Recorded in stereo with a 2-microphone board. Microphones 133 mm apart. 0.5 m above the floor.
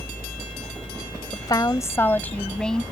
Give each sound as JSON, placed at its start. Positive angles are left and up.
{"t": 1.3, "sound": "a woman speaking", "side_deg": 35}